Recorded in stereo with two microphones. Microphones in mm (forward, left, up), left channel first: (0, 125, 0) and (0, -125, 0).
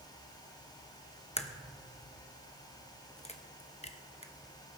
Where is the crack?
25° left (ahead or behind), 0.8 m.